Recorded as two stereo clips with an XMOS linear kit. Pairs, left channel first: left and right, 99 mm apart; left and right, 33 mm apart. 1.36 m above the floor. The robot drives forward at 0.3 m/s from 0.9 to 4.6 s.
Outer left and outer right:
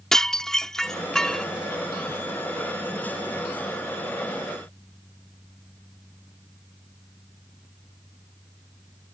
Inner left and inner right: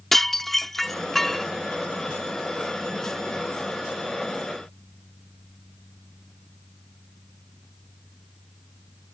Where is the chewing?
No chewing in this recording.